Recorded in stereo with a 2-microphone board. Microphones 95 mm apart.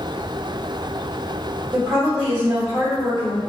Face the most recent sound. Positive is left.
turn(degrees=-40)  # may be behind; listen again after turning